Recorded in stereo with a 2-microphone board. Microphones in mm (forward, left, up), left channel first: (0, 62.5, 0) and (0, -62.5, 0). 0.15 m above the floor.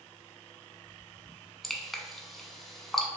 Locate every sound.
1.6 s dripping: centre (ahead or behind), 0.5 m